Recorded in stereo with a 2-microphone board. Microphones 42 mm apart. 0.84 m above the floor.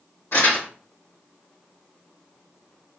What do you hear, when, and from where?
0.3 s crumpling: 85° left, 2.5 m